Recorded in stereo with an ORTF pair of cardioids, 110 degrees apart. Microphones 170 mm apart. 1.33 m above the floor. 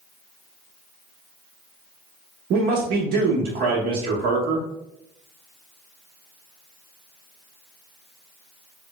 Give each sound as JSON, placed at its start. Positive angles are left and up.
{"t": 2.5, "sound": "a man speaking", "azimuth_deg": -65, "distance_m": 1.2}